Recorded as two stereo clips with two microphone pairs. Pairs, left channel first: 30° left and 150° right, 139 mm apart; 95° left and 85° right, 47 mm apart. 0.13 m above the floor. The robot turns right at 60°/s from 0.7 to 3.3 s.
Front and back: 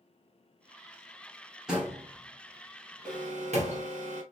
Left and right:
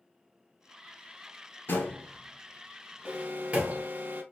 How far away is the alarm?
About 2.5 m.